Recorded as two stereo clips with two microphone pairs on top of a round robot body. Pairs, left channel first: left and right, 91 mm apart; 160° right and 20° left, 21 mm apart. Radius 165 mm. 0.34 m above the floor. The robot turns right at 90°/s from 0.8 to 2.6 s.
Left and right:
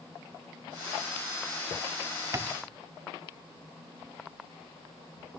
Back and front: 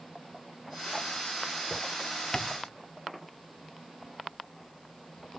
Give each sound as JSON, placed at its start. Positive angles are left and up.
{"t": 2.3, "sound": "tapping", "azimuth_deg": -100, "distance_m": 0.7}